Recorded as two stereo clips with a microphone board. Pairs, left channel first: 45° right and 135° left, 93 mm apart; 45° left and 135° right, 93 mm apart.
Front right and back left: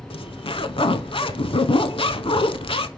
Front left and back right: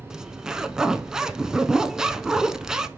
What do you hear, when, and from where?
0.1 s a zipper: 50° right, 0.5 m